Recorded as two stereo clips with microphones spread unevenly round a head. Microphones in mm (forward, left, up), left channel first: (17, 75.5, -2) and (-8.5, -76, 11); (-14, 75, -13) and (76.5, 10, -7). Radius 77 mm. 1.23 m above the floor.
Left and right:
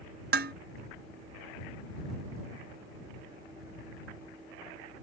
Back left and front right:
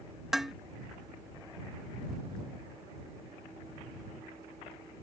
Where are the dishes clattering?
120° right.